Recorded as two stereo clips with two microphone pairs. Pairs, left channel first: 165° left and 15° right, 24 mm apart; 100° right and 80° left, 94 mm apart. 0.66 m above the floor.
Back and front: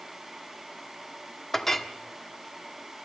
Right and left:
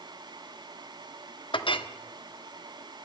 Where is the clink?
115° right, 0.9 m.